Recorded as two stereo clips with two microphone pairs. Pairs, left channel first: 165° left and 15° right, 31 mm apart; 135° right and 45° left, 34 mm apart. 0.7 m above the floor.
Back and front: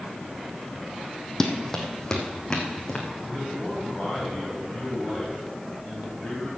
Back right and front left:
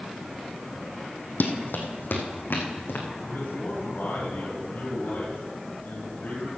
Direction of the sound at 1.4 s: 125° right.